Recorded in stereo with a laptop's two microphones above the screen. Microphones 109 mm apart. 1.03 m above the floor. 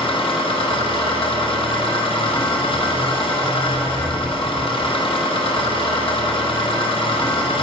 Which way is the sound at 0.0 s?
55° left (ahead or behind).